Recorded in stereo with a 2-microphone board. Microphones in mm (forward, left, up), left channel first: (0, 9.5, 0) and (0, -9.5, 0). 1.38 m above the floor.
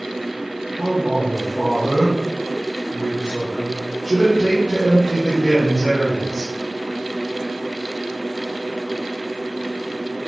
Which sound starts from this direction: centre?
A man speaking, at 0.8 s.